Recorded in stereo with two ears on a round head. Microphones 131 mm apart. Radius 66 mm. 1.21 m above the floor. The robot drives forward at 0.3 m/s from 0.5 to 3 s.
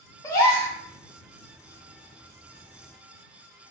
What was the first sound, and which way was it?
A gasp, 20° left (ahead or behind).